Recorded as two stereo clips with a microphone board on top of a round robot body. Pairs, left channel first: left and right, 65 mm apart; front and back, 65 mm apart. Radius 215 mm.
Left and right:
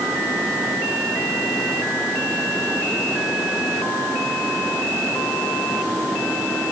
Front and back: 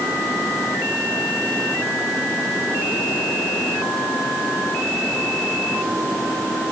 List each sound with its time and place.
Only background noise.